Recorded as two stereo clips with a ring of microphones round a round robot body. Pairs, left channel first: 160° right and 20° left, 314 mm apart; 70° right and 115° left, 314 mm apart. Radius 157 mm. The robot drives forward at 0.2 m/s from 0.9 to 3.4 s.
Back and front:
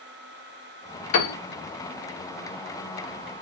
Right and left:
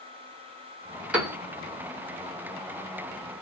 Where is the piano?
160° right, 1.2 m.